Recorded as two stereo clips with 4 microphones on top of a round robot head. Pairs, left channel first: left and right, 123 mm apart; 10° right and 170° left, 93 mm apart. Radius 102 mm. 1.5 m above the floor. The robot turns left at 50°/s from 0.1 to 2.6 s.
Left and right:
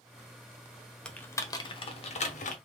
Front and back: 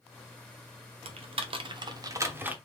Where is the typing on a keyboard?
170° left, 0.9 m; by 2.5 s 95° left, 0.9 m.